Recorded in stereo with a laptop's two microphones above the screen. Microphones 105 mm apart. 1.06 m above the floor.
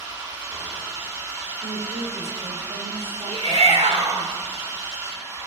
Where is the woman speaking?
80° right, 2.5 m.